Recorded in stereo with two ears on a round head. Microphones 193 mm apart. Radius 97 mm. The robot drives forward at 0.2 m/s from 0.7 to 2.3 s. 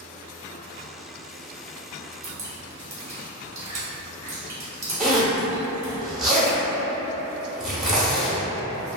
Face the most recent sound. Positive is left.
turn(degrees=-5)  # may be behind; listen again after turning